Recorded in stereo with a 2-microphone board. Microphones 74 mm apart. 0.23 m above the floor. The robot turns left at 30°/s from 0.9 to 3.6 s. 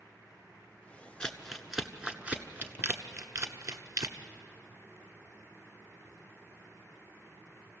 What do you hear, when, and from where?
1.2 s crumpling: 10° left (ahead or behind), 1.2 m; by 4.2 s 55° right (ahead or behind), 1.2 m